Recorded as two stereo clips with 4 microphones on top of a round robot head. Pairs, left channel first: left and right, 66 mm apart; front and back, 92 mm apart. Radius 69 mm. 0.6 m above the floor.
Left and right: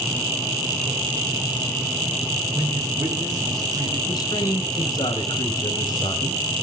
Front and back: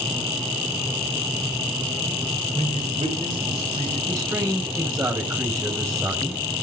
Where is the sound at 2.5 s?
130° right, 9 m.